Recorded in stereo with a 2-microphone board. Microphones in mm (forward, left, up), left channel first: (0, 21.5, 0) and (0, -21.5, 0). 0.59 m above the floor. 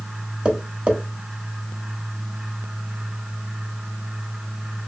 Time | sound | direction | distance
0.5 | tapping | 30° right (ahead or behind) | 0.8 m